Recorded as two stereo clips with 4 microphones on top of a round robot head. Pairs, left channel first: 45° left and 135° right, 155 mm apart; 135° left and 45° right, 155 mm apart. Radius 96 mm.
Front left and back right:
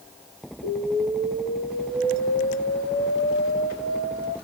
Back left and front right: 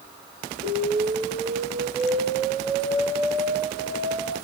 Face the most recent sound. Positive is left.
turn(degrees=30)